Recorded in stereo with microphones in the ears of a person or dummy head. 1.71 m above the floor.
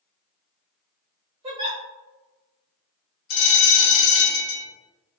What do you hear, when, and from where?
1.4 s a giggle: 25° right (ahead or behind), 1.5 m
3.3 s a bell: 50° left (ahead or behind), 0.6 m